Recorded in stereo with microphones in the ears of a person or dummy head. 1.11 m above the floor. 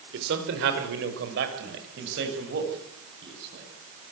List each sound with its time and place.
0.1 s a man speaking: 60° right (ahead or behind), 4.5 m; by 3.6 s 55° right (ahead or behind), 9 m